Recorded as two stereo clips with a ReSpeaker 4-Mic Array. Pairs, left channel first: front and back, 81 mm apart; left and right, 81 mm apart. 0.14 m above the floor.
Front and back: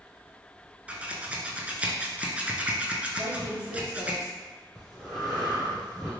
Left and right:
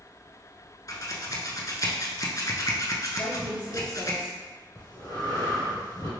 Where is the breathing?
85° left, 1.9 m.